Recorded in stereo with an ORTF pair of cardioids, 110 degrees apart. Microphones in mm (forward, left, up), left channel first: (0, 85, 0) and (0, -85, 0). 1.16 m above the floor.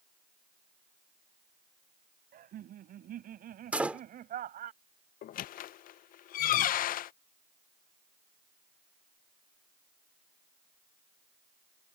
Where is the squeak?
55° left.